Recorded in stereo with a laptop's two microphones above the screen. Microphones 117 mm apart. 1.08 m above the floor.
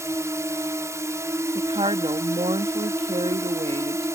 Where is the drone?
25° right (ahead or behind).